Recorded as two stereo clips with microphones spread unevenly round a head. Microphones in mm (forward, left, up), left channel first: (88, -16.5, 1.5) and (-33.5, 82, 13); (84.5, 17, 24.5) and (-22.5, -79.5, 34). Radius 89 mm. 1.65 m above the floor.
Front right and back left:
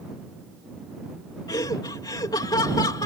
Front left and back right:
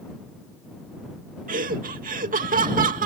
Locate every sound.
1.5 s laughter: 110° right